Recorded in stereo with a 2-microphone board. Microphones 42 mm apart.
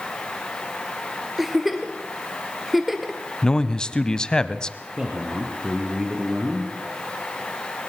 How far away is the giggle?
About 2.0 m.